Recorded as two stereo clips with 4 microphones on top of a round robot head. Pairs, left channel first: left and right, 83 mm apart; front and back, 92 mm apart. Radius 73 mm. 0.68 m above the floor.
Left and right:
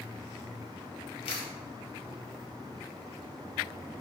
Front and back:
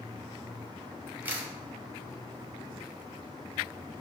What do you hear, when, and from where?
1.2 s a camera shutter: 110° left, 0.7 m